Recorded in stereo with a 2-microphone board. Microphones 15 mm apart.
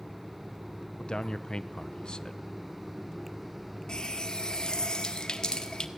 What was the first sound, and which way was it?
A man speaking, 55° left (ahead or behind).